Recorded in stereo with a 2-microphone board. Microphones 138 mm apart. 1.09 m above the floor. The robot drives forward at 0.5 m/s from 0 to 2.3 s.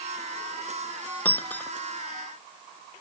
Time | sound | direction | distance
1.2 | breaking glass | 10° left (ahead or behind) | ?